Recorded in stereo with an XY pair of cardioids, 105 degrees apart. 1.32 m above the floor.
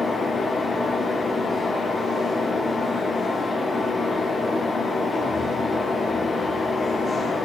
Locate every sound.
0.0 s a fan: 30° left, 1.1 m